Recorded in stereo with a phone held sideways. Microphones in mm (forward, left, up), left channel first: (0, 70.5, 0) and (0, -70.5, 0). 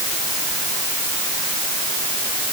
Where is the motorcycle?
I don't hear a motorcycle.